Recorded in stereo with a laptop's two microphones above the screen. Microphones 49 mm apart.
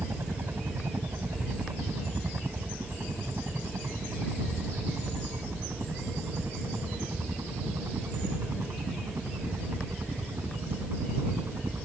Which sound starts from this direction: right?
A helicopter, at 0.0 s.